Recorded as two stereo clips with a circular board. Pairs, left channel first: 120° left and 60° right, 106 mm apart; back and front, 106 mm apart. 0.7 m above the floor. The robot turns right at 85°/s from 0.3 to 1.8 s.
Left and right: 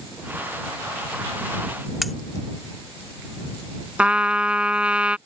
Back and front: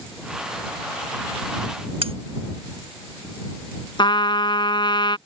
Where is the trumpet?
140° right.